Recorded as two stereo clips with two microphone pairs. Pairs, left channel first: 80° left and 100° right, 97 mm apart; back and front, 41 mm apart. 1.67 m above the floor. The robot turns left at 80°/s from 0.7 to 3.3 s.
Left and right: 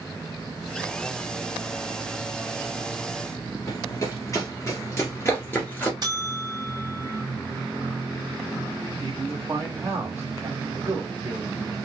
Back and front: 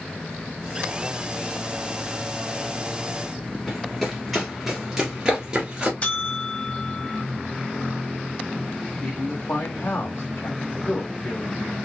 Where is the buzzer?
130° right, 1.1 m.